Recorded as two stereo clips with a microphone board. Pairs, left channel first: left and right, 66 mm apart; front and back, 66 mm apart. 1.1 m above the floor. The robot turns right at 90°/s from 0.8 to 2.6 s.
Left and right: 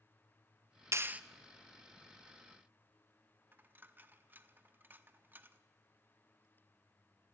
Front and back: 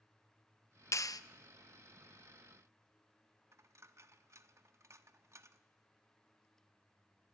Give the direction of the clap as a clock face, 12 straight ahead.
1 o'clock.